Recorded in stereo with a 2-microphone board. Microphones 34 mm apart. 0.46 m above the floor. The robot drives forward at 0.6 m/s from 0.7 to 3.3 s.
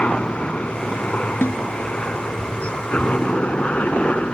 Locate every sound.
0.0 s a helicopter: 35° left (ahead or behind)
1.4 s a snare drum: 75° left (ahead or behind)